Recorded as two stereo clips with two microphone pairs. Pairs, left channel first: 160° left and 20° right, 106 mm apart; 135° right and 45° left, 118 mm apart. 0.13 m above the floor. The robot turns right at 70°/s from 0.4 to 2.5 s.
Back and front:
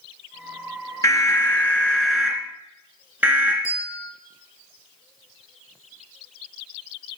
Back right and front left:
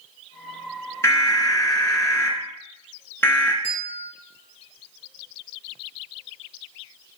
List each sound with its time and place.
1.0 s an alarm: 175° left, 1.6 m; by 3.5 s 80° right, 1.6 m
3.6 s a bell: 140° right, 2.5 m